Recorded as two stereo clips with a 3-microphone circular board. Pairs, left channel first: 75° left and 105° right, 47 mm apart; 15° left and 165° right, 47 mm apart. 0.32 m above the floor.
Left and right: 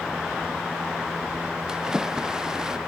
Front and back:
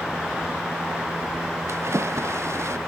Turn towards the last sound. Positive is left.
turn(degrees=175)